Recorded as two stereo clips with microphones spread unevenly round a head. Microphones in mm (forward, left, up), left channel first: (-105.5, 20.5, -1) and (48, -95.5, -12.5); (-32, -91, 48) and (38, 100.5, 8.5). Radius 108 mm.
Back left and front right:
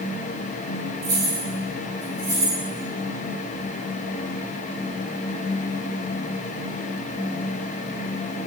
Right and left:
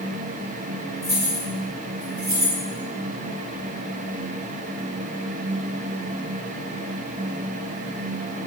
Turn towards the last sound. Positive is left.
turn(degrees=45)